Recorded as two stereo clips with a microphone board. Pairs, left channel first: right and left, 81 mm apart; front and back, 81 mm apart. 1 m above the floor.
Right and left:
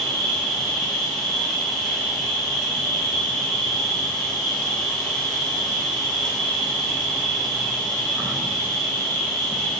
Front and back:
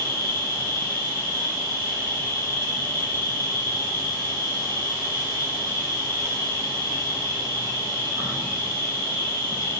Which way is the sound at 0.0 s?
170° right.